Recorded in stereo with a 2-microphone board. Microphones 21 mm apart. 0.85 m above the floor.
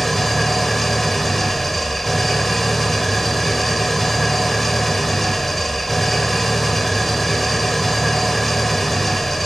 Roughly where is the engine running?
Centre.